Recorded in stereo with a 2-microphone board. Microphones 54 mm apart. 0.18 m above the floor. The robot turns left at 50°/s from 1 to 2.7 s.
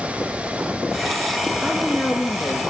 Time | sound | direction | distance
1.6 | a woman speaking | 175° right | 4 m